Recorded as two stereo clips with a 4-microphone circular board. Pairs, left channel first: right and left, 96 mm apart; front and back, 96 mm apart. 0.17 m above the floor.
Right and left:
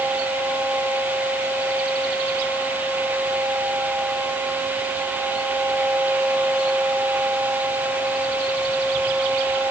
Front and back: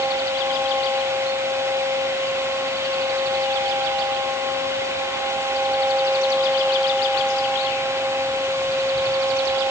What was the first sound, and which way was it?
Only background noise.